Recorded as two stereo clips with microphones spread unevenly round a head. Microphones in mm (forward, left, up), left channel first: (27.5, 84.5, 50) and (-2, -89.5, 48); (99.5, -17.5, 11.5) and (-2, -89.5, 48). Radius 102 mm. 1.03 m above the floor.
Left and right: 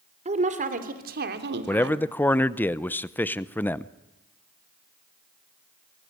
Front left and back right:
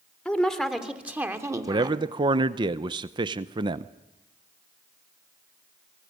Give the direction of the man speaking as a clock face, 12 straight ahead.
7 o'clock.